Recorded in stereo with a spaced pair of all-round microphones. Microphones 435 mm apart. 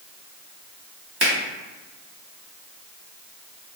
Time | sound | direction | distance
1.2 | a finger snap | 60° right (ahead or behind) | 1.4 m